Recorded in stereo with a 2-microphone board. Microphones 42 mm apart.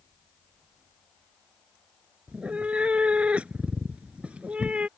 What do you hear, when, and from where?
2.3 s a cat meowing: 30° right (ahead or behind)